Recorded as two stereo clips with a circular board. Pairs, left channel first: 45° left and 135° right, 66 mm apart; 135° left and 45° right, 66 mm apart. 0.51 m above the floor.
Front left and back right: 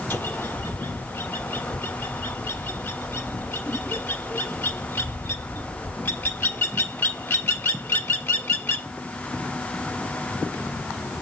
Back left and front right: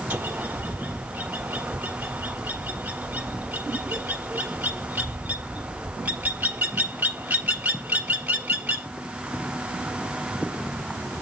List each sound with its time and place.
0.1 s a bird: 5° left, 1.4 m